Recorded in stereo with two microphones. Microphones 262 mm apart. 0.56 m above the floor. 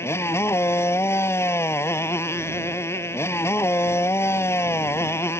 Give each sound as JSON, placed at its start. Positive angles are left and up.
{"t": 0.0, "sound": "a motorcycle", "side_deg": 10}